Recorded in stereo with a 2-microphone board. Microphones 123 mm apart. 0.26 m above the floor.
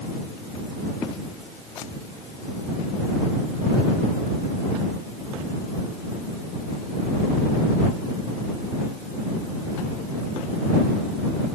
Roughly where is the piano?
I don't hear a piano.